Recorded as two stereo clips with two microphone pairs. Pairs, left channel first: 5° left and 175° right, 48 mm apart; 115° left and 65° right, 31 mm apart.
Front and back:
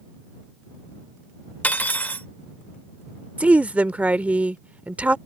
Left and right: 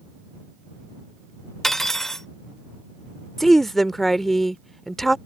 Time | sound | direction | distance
1.6 | cutlery clinking | 45° left | ?
3.4 | a woman speaking | 170° right | ?